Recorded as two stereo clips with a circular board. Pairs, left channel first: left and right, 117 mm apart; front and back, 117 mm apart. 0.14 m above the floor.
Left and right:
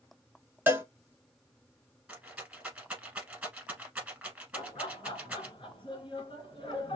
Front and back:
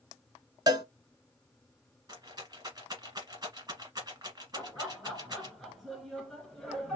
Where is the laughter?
90° left, 2 m.